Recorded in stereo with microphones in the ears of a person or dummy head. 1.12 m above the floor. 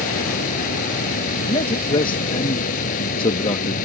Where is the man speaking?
30° left (ahead or behind).